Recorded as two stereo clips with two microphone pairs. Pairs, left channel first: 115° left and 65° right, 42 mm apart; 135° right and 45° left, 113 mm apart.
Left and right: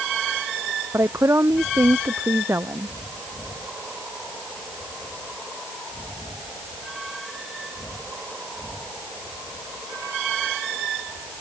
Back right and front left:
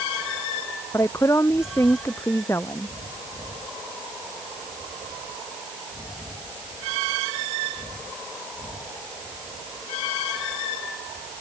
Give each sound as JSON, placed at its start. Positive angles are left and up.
{"t": 0.9, "sound": "a woman speaking", "azimuth_deg": -70}